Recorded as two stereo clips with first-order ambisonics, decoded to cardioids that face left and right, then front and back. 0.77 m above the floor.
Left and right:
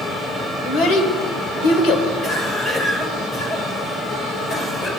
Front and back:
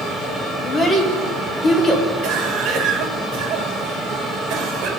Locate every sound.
0.6 s a child speaking: 75° left, 2 m
2.2 s a cough: 155° left, 2.5 m